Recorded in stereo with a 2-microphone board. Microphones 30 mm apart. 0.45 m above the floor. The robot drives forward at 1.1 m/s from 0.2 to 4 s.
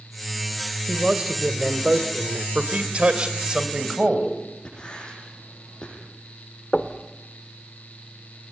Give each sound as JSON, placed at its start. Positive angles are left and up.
{"t": 0.9, "sound": "a man speaking", "side_deg": -25, "distance_m": 2.5}
{"t": 2.5, "sound": "a man speaking", "side_deg": -45, "distance_m": 2.0}
{"t": 4.7, "sound": "writing", "side_deg": 25, "distance_m": 8.0}
{"t": 6.7, "sound": "knocking", "side_deg": 30, "distance_m": 1.4}